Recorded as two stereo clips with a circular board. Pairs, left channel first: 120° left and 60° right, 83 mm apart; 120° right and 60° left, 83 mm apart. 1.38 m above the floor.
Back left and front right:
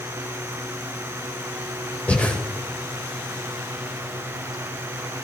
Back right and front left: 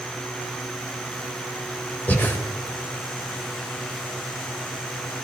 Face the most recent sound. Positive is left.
turn(degrees=180)